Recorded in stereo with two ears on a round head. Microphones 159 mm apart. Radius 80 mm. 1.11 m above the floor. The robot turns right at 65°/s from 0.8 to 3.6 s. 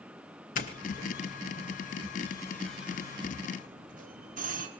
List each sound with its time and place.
0.6 s a doorbell: 45° left (ahead or behind), 2.5 m; by 4.7 s 50° right (ahead or behind), 2.5 m